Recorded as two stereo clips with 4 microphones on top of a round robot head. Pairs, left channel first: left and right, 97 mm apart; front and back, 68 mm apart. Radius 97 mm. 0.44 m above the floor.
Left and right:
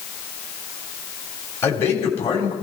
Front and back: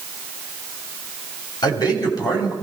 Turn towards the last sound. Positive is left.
turn(degrees=25)